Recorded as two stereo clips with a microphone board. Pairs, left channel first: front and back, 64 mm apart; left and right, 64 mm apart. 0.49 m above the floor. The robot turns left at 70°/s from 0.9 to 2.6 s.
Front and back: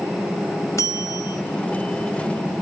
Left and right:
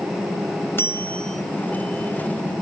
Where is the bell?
35° left, 0.9 m; by 1.4 s straight ahead, 0.9 m.